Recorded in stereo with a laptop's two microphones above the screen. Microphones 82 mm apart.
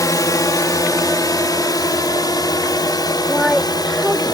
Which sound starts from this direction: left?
A drone, at 0.0 s.